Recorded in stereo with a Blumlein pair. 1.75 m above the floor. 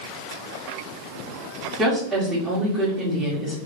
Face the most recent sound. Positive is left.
turn(degrees=-10)